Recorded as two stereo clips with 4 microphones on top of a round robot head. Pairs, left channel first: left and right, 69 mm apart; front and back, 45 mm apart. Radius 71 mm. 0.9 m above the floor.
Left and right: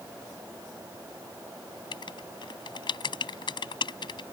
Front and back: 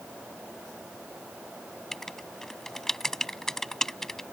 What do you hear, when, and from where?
1.9 s writing: 85° left